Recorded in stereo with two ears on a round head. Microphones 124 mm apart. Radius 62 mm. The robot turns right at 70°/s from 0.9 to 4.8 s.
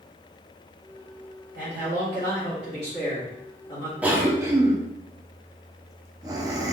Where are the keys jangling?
No keys jangling in this recording.